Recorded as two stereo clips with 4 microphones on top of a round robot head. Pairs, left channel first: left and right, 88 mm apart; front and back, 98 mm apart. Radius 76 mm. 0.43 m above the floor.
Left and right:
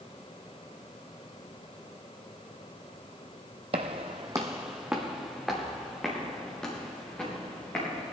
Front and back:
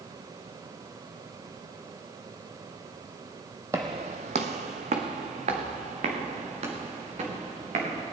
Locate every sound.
3.7 s footsteps: 110° right, 0.6 m; by 8.1 s 170° left, 4.5 m